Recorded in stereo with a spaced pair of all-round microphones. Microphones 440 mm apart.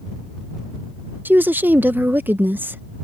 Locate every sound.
1.2 s a woman speaking: 5° right (ahead or behind)